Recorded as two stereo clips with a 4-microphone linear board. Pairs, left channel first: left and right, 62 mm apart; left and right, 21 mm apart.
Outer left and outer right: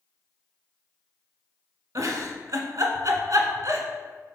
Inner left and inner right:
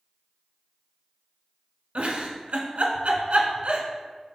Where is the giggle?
65° right (ahead or behind), 0.7 m.